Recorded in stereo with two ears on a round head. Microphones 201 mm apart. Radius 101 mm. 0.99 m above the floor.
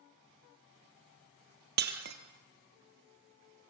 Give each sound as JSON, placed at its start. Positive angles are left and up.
{"t": 1.8, "sound": "breaking glass", "side_deg": -50, "distance_m": 2.5}